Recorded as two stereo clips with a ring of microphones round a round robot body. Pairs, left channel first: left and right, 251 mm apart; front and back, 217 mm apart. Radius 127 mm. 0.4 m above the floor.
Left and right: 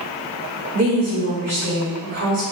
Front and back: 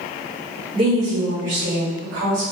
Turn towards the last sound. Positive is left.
turn(degrees=-130)